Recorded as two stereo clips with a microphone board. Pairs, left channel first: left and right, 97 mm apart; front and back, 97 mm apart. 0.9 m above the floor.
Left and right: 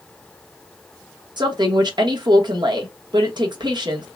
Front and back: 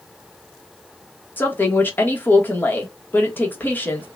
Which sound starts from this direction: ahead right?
A woman speaking, at 1.4 s.